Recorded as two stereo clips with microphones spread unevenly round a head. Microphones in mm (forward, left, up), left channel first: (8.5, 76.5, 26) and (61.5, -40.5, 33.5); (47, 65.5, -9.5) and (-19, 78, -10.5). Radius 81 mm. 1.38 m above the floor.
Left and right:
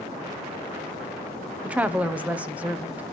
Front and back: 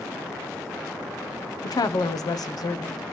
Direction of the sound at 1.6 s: 15° left.